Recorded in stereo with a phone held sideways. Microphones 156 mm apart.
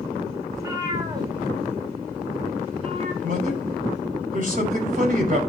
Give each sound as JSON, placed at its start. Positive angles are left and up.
{"t": 0.5, "sound": "a cat meowing", "side_deg": -20, "distance_m": 2.0}
{"t": 3.2, "sound": "a man speaking", "side_deg": -55, "distance_m": 5.5}